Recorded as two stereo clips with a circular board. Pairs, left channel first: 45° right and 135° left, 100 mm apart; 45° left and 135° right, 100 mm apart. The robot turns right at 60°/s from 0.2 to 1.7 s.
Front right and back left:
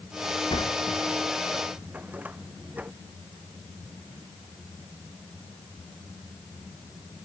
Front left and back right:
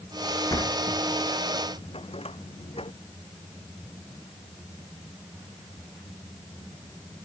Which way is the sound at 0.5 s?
10° right.